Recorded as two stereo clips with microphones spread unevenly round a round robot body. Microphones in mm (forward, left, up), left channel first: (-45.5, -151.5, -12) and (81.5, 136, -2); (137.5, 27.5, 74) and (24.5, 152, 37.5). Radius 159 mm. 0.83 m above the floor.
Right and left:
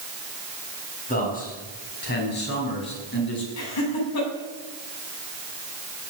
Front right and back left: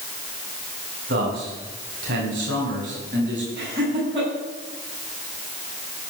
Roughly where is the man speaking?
Behind.